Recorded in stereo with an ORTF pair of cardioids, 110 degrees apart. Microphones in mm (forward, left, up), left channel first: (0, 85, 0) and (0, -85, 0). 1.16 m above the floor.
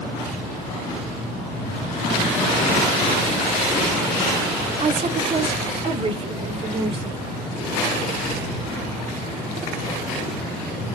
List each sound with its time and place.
4.8 s a woman speaking: 40° right, 1.7 m; by 7.2 s 35° right, 4 m